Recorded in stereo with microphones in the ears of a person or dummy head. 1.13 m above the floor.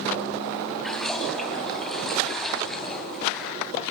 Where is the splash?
5° left (ahead or behind), 2 m.